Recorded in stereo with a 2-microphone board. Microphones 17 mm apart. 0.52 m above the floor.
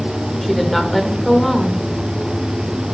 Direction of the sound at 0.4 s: 5° left (ahead or behind).